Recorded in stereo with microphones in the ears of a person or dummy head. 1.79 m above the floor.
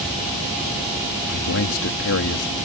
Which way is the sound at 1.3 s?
75° left (ahead or behind).